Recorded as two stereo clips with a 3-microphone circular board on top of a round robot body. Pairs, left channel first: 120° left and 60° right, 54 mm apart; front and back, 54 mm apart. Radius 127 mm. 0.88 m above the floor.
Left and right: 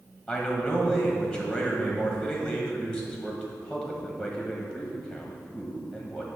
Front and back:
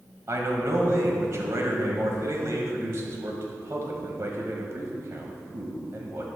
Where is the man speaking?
150° right, 1.5 m.